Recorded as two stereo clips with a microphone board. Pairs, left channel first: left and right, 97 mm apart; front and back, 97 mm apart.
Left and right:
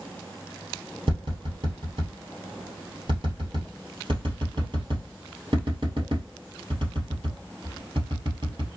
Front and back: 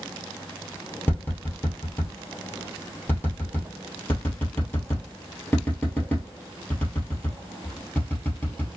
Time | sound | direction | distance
1.1 | tapping | 70° right | 1.8 m